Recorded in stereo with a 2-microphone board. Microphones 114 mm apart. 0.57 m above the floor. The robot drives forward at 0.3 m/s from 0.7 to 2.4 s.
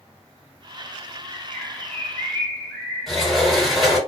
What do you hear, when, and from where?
1.3 s a bird: 20° left (ahead or behind), 0.8 m; by 3.8 s 15° left (ahead or behind), 1.0 m
3.1 s a sliding door: centre (ahead or behind), 2 m